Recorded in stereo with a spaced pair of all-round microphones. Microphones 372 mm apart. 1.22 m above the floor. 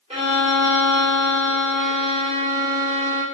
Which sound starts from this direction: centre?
A violin, at 0.1 s.